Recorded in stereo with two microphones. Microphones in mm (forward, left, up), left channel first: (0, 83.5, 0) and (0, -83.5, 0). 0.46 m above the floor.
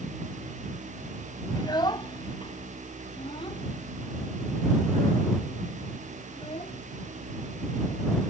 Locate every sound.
1.6 s a child speaking: 25° left (ahead or behind); by 8.2 s 35° left (ahead or behind)